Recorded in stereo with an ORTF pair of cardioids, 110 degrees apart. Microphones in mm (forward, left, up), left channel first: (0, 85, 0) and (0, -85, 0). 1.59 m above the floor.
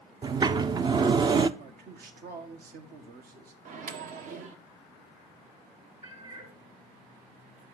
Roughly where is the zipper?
I don't hear a zipper.